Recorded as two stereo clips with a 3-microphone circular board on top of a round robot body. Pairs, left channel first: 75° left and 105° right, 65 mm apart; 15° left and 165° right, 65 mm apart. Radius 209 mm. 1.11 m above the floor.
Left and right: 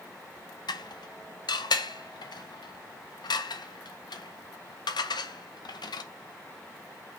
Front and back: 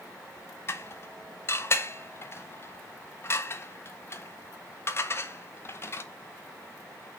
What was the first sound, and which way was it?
Dishes clattering, 70° left.